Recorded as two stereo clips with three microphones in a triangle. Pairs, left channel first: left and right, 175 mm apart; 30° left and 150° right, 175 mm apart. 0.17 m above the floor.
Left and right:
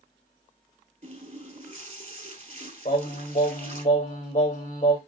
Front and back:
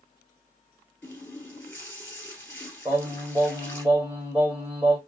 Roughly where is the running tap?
Ahead right.